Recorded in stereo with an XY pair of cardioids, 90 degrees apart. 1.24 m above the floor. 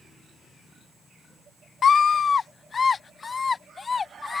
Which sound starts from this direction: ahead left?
A scream, at 1.8 s.